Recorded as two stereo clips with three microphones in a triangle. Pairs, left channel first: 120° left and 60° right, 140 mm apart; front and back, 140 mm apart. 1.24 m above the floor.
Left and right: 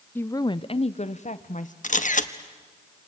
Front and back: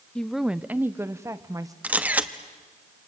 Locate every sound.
0.1 s a woman speaking: 70° left, 0.5 m; by 1.7 s 120° left, 1.2 m
1.8 s a camera shutter: 100° left, 1.0 m